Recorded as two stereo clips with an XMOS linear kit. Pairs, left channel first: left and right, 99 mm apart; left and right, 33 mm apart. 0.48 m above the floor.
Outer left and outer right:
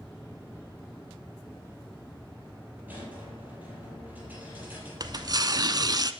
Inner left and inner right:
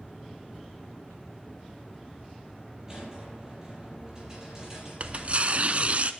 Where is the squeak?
15° right (ahead or behind), 6.5 m.